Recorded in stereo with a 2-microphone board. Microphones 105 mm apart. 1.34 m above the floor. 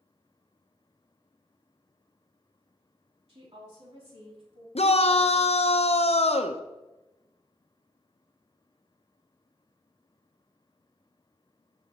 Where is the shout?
75° left (ahead or behind), 0.8 m.